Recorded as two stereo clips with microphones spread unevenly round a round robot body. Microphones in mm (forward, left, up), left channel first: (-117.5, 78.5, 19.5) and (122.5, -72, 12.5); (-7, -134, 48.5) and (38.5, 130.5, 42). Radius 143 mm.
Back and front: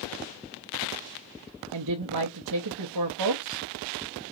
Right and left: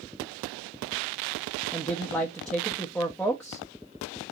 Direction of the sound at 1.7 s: 15° right.